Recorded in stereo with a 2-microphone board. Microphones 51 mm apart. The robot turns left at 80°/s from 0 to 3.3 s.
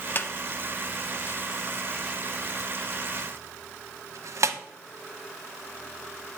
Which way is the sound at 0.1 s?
40° left (ahead or behind).